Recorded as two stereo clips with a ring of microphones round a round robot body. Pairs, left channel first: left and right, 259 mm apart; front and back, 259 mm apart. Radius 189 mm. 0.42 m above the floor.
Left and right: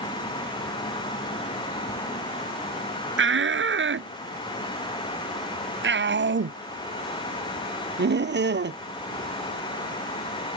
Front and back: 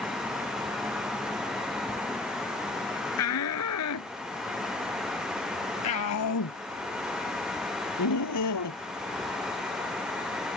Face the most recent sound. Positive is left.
turn(degrees=-40)